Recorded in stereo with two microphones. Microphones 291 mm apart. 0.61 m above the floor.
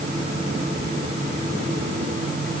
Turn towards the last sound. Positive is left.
No sound to turn to.